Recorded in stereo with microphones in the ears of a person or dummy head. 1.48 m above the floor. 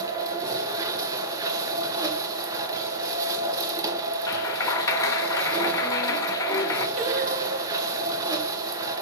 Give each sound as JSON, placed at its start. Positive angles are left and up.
{"t": 0.0, "sound": "a machine running", "side_deg": -20, "distance_m": 1.0}
{"t": 4.3, "sound": "a clap", "side_deg": 15, "distance_m": 0.7}
{"t": 7.0, "sound": "singing", "side_deg": -45, "distance_m": 0.9}